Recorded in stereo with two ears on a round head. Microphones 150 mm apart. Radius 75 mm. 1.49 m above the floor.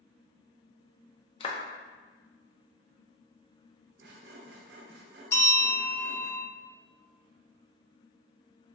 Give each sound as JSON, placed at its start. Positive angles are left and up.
{"t": 1.4, "sound": "a clap", "side_deg": 30, "distance_m": 0.5}
{"t": 4.0, "sound": "sawing", "side_deg": -60, "distance_m": 0.6}
{"t": 5.3, "sound": "a bell", "side_deg": 15, "distance_m": 0.8}